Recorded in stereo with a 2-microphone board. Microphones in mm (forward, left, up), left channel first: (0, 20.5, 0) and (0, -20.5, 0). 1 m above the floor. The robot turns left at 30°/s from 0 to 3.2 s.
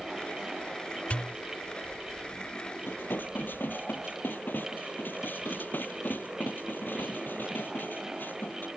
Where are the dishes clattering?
65° left (ahead or behind); by 8.7 s 50° left (ahead or behind).